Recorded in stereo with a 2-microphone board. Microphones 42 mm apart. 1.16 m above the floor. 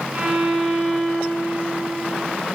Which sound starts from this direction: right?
A violin, at 0.1 s.